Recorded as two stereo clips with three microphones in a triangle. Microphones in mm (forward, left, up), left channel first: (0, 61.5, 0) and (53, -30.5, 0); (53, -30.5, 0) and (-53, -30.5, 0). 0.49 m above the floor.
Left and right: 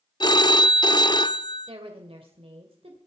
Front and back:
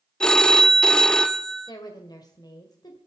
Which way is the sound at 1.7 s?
45° right.